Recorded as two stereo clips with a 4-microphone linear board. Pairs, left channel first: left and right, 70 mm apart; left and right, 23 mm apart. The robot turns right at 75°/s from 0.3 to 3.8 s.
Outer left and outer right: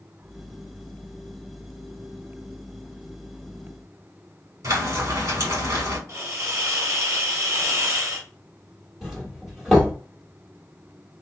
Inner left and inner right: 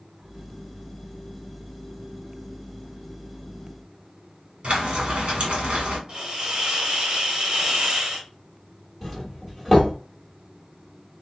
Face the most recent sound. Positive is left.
turn(degrees=-5)  # may be behind; listen again after turning